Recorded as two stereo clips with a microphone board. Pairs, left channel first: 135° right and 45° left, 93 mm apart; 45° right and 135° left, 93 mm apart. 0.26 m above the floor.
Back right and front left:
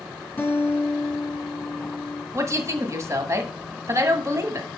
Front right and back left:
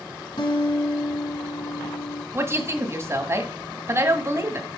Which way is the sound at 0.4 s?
65° right.